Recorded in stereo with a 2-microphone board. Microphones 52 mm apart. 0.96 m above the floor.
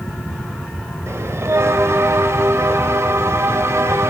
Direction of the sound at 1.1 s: 65° right (ahead or behind).